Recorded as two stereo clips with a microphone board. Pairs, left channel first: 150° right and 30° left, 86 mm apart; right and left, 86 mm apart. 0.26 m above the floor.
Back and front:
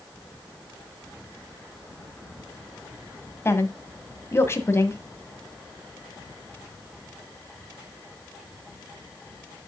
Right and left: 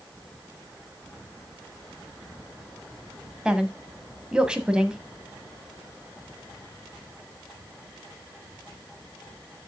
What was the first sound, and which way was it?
A woman speaking, 165° left.